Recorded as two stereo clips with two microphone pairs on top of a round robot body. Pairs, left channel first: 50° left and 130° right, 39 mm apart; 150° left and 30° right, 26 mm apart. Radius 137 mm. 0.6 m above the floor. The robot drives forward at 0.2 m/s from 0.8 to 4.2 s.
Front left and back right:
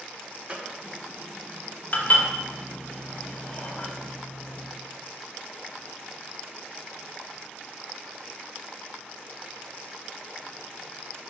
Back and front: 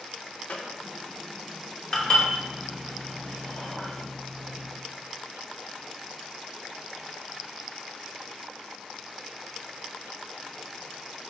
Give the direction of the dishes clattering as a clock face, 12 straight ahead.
9 o'clock.